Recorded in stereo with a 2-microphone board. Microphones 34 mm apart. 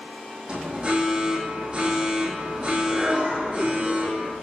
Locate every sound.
0.5 s an alarm: 25° right (ahead or behind), 7 m